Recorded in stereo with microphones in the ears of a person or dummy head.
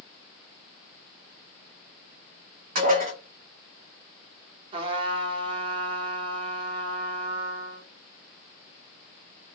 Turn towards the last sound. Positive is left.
turn(degrees=-30)  # may be behind; listen again after turning